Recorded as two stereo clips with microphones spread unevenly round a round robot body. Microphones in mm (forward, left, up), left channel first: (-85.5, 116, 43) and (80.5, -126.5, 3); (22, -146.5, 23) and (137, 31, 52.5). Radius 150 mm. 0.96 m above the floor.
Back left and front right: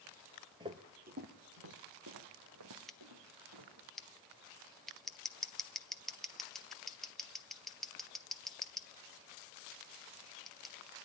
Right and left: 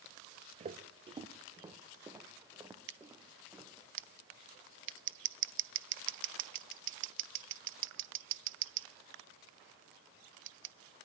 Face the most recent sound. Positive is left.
turn(degrees=30)